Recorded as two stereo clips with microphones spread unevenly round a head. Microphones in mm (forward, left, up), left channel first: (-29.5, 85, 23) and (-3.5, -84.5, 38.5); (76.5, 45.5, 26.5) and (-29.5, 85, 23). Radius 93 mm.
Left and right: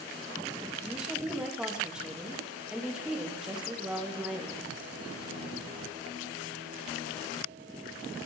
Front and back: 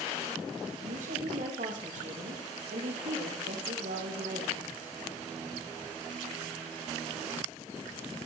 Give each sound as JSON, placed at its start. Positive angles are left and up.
{"t": 0.8, "sound": "a woman speaking", "azimuth_deg": -165, "distance_m": 3.0}